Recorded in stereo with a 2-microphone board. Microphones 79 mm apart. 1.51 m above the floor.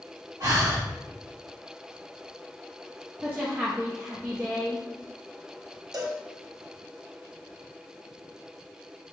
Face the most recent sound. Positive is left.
turn(degrees=-60)  # may be behind; listen again after turning